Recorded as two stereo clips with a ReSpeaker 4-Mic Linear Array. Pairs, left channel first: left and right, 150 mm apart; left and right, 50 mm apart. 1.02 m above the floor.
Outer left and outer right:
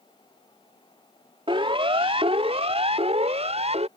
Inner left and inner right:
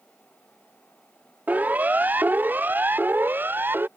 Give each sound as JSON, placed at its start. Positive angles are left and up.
{"t": 1.5, "sound": "a siren", "side_deg": -35}